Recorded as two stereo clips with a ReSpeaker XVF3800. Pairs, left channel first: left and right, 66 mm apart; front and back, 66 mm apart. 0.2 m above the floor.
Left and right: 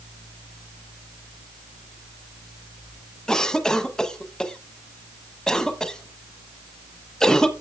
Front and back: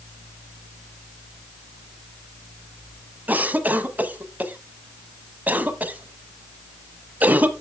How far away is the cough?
About 1.2 m.